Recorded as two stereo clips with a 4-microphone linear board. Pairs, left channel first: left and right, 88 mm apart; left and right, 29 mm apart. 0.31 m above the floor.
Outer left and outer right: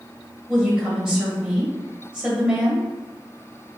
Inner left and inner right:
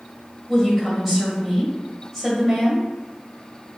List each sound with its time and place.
0.5 s a woman speaking: 10° right (ahead or behind), 1.6 m